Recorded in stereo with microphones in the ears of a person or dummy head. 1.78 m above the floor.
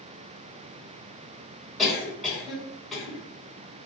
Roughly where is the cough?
Centre.